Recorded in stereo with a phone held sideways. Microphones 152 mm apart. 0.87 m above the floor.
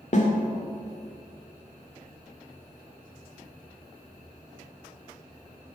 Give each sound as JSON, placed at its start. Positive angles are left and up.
{"t": 0.1, "sound": "a snare drum", "side_deg": 50, "distance_m": 1.6}